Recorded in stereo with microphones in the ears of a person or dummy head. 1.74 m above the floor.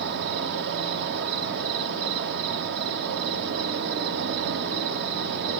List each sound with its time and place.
0.0 s an insect: 55° right (ahead or behind), 0.9 m